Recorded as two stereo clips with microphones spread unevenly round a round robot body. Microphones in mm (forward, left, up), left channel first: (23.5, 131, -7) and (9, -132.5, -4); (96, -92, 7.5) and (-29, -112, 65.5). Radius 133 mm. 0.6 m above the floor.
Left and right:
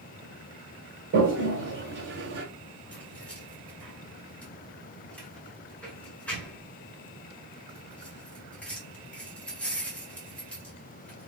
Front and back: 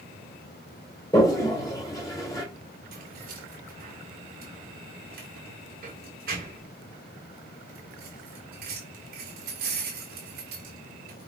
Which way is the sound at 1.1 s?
45° right.